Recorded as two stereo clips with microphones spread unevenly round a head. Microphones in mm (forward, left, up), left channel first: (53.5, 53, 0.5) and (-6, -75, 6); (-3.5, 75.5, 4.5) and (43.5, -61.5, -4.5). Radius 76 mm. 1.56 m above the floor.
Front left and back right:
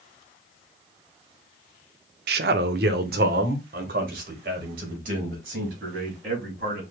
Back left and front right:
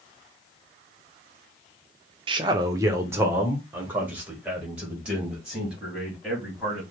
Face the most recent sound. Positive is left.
turn(degrees=-160)